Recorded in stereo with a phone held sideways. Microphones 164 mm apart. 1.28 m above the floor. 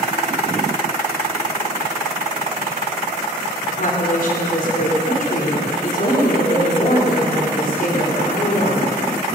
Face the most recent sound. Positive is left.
turn(degrees=55)  # may be behind; listen again after turning